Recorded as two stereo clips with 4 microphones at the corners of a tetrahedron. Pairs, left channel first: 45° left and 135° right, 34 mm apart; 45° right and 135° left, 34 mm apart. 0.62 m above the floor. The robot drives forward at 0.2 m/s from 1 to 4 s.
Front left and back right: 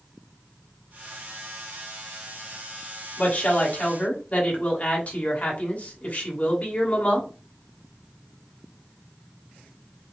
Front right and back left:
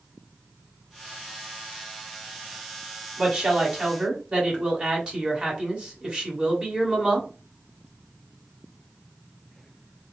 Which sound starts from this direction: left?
A woman speaking, at 3.2 s.